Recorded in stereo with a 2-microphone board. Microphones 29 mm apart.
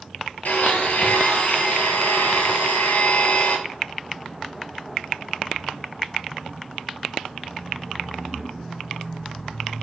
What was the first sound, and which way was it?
A blender, 80° left.